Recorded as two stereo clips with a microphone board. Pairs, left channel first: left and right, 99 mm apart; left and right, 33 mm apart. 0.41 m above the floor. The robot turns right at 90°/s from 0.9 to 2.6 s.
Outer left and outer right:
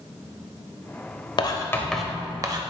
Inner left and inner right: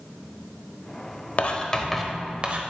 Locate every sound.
1.4 s writing: 125° left, 0.8 m; by 2.6 s 125° right, 0.8 m